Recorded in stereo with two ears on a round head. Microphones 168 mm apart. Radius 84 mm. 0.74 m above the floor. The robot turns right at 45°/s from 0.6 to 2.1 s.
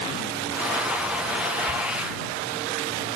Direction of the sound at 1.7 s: 80° right.